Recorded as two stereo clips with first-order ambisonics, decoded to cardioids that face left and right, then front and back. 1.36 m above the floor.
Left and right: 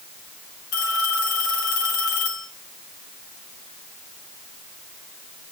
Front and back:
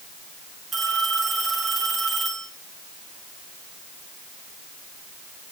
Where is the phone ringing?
100° left, 7.5 m.